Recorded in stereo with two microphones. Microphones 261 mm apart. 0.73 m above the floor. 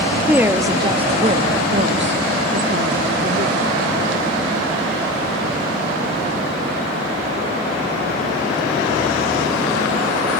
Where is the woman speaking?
5° right (ahead or behind), 1.3 m; by 4.0 s 45° right (ahead or behind), 1.8 m.